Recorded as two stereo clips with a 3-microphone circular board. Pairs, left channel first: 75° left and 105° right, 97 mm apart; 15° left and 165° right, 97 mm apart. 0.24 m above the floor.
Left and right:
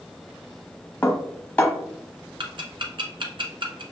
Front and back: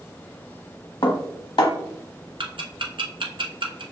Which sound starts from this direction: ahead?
Dishes clattering, at 1.0 s.